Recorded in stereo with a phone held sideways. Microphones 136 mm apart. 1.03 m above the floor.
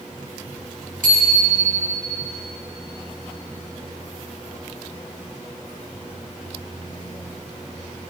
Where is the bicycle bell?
85° right, 5 m.